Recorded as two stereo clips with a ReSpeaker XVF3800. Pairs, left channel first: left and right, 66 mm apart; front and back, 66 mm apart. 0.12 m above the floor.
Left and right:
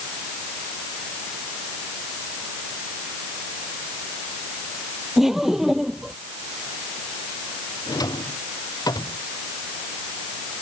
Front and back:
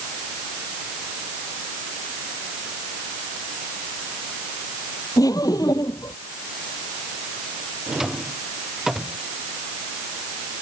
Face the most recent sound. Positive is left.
turn(degrees=95)